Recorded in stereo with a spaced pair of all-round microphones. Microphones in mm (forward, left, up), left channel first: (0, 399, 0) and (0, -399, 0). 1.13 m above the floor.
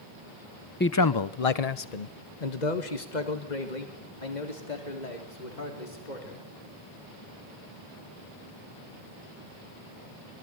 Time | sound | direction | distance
0.8 | a man speaking | 15° left (ahead or behind) | 0.6 m